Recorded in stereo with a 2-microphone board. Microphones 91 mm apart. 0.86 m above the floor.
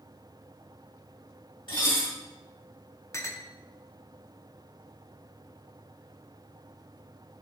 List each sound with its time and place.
1.7 s dishes clattering: 70° left (ahead or behind), 3.5 m
3.1 s a clink: 30° left (ahead or behind), 0.6 m